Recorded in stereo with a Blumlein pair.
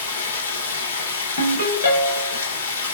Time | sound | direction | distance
0.0 | running water | 65° left | 0.9 m
1.4 | a ringtone | 55° left | 1.1 m